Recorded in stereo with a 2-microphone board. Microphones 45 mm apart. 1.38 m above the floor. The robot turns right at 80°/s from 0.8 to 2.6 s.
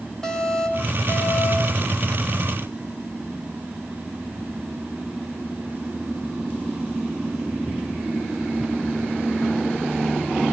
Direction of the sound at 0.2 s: 15° left.